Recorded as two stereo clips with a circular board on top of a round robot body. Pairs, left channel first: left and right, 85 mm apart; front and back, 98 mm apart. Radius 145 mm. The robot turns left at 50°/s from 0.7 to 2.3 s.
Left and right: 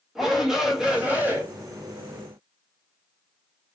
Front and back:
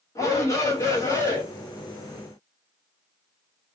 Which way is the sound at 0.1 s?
10° right.